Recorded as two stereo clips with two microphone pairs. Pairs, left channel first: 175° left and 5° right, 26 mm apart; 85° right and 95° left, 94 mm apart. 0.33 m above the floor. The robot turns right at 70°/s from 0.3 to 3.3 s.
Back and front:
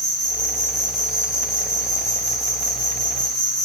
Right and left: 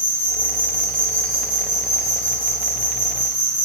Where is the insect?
75° right, 1.8 m; by 3.6 s 135° left, 1.8 m.